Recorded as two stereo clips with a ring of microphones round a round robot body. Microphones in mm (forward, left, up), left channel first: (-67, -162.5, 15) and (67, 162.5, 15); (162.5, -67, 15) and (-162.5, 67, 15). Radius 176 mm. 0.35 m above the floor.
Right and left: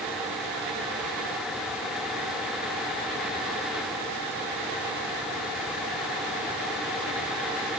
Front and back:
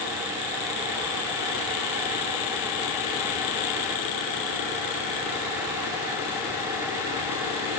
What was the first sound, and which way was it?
Only background noise.